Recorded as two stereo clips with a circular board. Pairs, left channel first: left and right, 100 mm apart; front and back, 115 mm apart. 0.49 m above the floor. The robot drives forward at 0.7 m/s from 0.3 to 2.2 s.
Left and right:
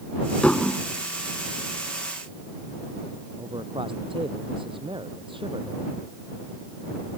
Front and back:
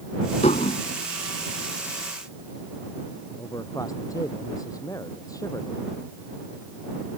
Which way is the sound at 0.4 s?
10° left.